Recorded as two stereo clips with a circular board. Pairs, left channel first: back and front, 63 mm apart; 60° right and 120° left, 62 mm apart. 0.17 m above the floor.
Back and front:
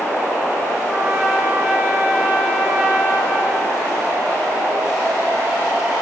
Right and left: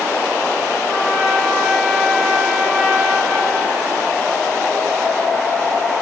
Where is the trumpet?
65° left, 2 m.